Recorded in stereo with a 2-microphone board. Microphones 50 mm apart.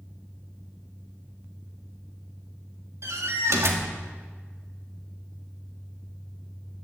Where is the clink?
No clink in this recording.